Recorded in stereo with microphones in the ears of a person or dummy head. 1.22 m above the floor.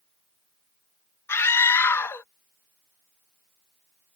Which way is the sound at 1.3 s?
10° left (ahead or behind).